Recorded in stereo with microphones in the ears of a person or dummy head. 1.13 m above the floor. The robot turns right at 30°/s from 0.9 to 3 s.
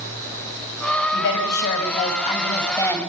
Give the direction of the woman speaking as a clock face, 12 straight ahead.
8 o'clock.